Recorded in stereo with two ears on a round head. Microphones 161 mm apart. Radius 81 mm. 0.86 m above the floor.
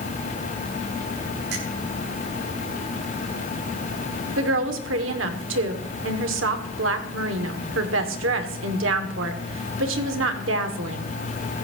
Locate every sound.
1.5 s a finger snap: 65° right (ahead or behind), 8.5 m
4.4 s a woman speaking: 80° right, 2 m